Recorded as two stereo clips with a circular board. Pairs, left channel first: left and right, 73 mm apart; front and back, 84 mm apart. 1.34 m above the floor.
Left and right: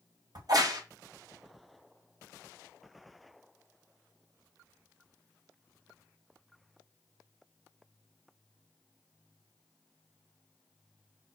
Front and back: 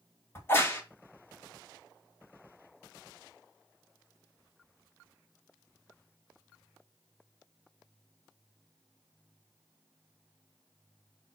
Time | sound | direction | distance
0.3 | a crack | 65° right | 1.8 m